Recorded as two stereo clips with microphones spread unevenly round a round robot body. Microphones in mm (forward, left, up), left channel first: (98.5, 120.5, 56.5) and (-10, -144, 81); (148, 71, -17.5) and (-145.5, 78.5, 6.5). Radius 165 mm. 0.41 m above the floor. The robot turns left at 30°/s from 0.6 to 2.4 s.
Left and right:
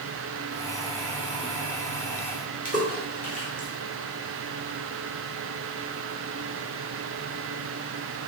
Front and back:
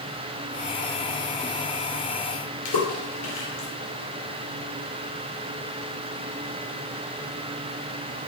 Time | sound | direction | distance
2.6 | a splash | 5° left | 1.9 m